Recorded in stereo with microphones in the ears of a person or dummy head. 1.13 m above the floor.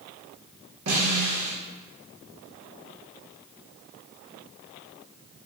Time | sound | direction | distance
0.9 | a snare drum | 75° right (ahead or behind) | 1.3 m